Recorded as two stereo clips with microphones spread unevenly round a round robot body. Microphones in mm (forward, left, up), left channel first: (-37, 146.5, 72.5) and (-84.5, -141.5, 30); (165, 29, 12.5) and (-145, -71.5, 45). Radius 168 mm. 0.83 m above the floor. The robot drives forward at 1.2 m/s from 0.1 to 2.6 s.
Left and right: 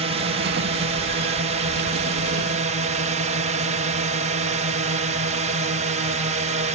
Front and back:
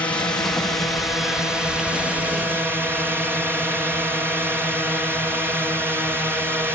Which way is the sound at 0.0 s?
60° right.